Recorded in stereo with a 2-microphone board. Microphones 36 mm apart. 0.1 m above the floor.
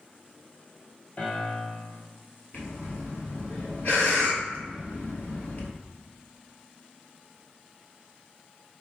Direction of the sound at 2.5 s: 50° left (ahead or behind).